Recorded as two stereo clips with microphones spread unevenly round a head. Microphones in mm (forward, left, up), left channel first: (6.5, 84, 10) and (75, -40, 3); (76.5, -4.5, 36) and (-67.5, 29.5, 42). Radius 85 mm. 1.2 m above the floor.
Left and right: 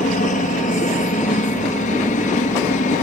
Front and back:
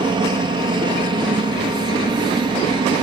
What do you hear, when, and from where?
0.0 s a helicopter: 115° left